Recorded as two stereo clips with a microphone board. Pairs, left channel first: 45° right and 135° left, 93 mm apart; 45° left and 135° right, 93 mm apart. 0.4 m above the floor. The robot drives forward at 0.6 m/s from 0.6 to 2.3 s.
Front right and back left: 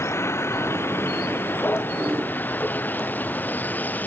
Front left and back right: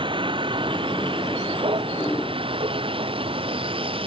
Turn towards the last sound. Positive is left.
turn(degrees=-115)